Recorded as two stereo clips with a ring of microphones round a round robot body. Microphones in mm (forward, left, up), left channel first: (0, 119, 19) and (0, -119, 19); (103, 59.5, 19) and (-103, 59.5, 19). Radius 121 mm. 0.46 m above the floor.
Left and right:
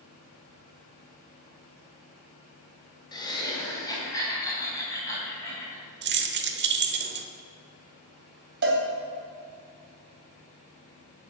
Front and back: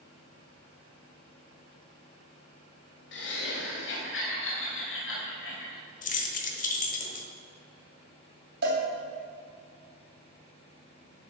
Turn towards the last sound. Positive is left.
turn(degrees=-135)